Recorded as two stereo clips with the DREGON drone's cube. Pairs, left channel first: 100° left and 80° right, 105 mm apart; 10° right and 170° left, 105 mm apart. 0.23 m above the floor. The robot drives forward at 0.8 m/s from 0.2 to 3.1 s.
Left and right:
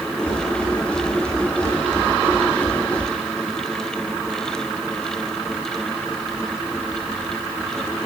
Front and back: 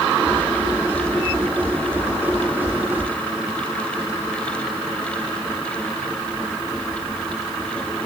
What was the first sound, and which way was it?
Only background noise.